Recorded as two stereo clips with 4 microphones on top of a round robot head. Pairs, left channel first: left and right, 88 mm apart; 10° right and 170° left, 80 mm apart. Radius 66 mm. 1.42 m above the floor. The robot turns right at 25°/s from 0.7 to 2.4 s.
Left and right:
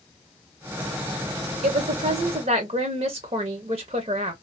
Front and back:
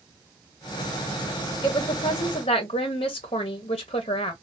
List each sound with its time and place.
1.6 s a woman speaking: 70° right, 0.5 m; by 4.3 s 50° right, 0.5 m